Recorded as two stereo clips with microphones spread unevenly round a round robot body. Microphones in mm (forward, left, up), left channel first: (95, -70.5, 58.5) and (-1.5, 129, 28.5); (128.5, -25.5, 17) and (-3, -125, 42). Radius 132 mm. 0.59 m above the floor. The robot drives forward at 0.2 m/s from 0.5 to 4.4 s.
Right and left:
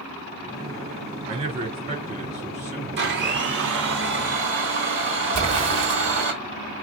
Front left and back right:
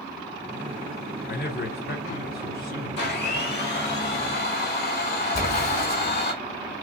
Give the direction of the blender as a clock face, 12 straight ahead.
9 o'clock.